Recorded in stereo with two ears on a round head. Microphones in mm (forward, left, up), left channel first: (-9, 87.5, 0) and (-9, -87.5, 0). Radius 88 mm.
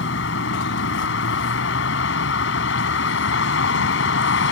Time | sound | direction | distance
0.0 | a vehicle | 65° left (ahead or behind) | ?